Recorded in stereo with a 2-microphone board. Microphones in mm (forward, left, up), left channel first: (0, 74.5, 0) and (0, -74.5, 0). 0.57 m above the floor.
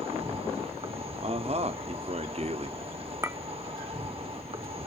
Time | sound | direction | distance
0.0 | an insect | 40° right (ahead or behind) | 1.3 m
1.2 | a man speaking | 45° right (ahead or behind) | 0.8 m
3.2 | a clink | 20° right (ahead or behind) | 0.7 m